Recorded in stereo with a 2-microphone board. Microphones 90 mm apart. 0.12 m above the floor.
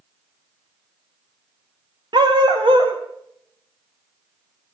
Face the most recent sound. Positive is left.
turn(degrees=-75)  # may be behind; listen again after turning